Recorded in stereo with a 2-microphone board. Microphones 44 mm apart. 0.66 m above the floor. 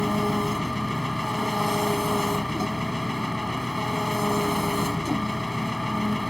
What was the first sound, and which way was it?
An engine running, 5° left (ahead or behind).